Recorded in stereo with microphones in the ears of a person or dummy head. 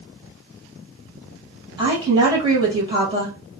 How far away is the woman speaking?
About 1.7 m.